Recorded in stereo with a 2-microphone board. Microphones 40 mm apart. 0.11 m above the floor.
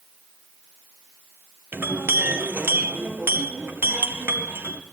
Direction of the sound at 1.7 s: 65° right (ahead or behind).